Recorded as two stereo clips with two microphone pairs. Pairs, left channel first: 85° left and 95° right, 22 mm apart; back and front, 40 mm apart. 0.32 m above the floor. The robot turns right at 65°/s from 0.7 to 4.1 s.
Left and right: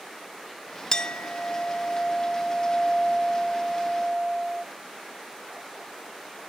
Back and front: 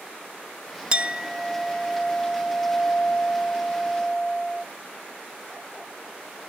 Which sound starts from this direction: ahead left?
A clink, at 0.9 s.